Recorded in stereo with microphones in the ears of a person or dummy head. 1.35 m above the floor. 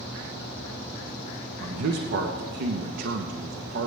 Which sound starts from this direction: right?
A man speaking, at 1.6 s.